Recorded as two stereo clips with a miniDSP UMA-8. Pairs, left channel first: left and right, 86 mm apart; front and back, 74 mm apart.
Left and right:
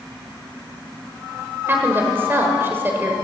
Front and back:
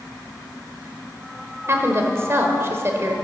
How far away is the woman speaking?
About 1.3 m.